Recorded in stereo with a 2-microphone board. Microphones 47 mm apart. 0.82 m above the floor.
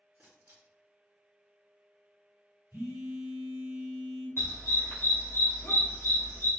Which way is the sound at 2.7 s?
75° right (ahead or behind).